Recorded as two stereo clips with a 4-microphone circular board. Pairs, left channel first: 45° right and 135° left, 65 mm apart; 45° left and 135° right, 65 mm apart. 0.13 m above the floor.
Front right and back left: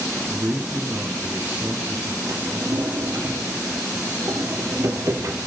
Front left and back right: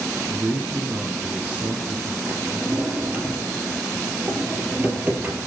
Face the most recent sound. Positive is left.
turn(degrees=160)